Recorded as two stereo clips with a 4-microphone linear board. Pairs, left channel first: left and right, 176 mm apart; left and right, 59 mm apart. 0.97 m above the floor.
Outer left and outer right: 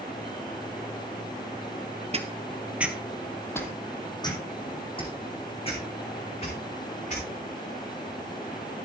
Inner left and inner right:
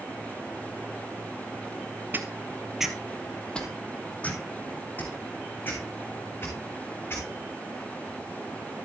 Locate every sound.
2.1 s footsteps: 35° right (ahead or behind), 1.2 m; by 7.2 s 40° left (ahead or behind), 5.5 m